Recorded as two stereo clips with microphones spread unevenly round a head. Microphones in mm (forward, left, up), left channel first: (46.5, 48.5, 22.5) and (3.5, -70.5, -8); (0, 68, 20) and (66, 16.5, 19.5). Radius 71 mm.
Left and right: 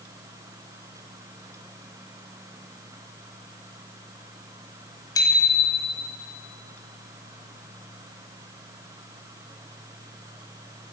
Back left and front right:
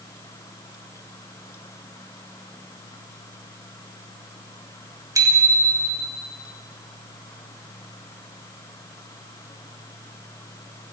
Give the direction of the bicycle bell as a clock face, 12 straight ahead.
12 o'clock.